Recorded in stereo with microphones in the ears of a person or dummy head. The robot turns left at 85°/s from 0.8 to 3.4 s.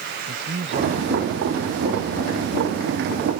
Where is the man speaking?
40° right; by 3.0 s 135° left.